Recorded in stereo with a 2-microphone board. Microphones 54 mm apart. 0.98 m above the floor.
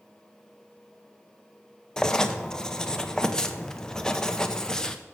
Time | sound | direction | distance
2.0 | writing | 15° left (ahead or behind) | 0.5 m